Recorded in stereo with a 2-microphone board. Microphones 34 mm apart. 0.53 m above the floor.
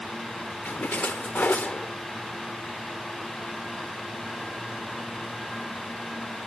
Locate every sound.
0.7 s a splash: 55° left (ahead or behind)